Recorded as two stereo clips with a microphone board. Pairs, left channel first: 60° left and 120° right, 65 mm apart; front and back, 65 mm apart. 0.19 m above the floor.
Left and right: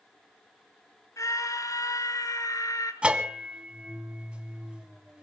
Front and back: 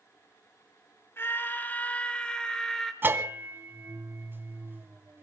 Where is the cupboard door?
No cupboard door in this recording.